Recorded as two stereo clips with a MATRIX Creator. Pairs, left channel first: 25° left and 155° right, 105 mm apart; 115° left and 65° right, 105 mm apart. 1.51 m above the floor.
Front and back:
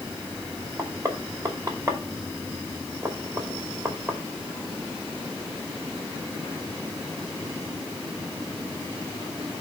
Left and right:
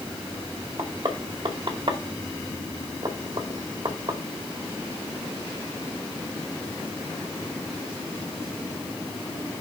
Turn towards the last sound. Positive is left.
turn(degrees=-105)